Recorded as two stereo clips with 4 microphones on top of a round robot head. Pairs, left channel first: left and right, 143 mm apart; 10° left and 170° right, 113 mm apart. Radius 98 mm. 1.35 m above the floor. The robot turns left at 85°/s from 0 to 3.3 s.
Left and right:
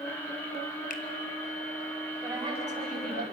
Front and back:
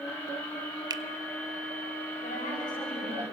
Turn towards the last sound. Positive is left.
turn(degrees=-105)